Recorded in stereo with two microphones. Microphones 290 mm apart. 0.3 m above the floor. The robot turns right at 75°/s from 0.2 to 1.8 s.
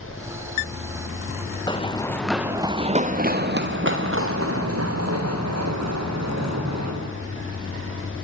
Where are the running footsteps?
15° left (ahead or behind), 2 m; by 6.9 s 65° right (ahead or behind), 7.5 m.